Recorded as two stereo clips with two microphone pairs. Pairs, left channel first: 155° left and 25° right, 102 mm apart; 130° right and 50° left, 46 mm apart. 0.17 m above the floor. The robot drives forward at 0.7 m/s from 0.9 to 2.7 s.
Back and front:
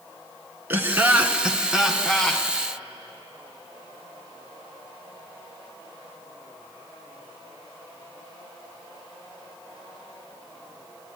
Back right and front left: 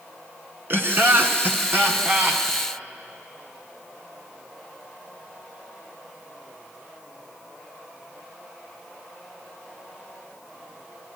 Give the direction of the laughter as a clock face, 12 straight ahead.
11 o'clock.